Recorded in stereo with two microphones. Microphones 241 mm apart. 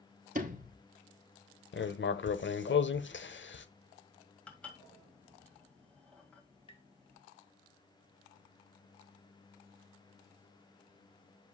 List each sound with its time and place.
0.3 s a sliding door: 35° right (ahead or behind), 0.9 m
1.7 s writing: 50° left (ahead or behind), 0.6 m
4.5 s dishes clattering: 5° left (ahead or behind), 1.9 m
6.7 s tapping: 20° left (ahead or behind), 1.5 m